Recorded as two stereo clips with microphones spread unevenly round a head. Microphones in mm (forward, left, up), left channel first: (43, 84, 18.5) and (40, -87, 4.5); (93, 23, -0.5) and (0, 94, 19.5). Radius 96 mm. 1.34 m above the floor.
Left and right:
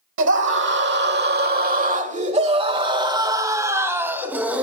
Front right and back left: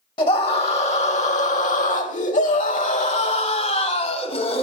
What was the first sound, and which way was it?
A scream, 95° right.